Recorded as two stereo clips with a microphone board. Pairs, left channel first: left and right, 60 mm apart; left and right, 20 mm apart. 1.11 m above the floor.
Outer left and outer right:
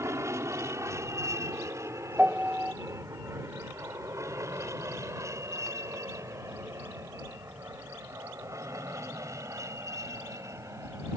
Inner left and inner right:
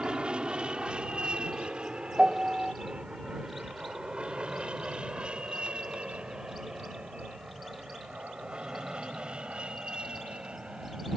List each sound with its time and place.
0.0 s an aircraft: 55° right (ahead or behind); by 11.2 s 60° right (ahead or behind)
2.2 s a piano: 20° right (ahead or behind)